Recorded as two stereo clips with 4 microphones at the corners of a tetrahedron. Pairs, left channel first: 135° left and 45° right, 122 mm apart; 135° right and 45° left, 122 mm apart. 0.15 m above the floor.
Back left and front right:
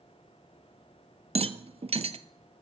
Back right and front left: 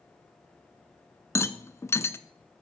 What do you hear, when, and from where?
1.4 s a rattle: 70° right, 0.6 m